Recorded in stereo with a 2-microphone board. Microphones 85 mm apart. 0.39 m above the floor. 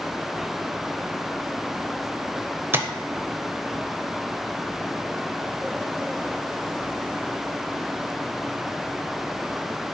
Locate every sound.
2.7 s tapping: 25° right (ahead or behind), 0.5 m